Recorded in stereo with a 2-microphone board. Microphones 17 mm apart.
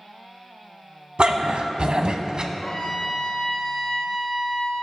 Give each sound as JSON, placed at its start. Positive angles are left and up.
{"t": 1.2, "sound": "a dog barking", "side_deg": -70, "distance_m": 1.0}
{"t": 2.5, "sound": "a trumpet", "side_deg": 40, "distance_m": 2.5}